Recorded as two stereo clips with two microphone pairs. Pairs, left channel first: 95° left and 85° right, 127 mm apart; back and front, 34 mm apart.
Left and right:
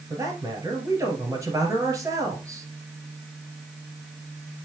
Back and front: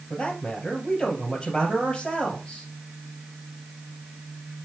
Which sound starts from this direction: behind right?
A man speaking, at 0.1 s.